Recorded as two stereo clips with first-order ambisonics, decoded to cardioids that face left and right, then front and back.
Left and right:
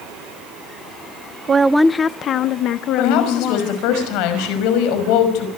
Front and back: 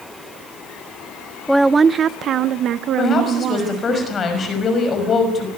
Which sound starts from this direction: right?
A woman speaking, at 1.5 s.